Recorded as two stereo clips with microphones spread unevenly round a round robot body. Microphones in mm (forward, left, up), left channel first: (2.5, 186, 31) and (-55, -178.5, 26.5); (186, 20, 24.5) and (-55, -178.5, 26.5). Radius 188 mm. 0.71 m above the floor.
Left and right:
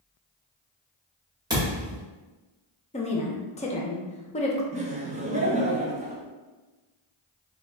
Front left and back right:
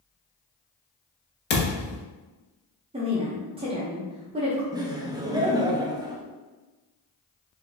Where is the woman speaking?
150° left, 0.8 m.